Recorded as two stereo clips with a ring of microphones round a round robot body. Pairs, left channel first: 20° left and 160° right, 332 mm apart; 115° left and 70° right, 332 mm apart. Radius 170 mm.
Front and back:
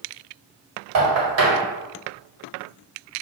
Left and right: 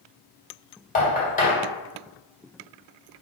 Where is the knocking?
175° left, 1.7 m.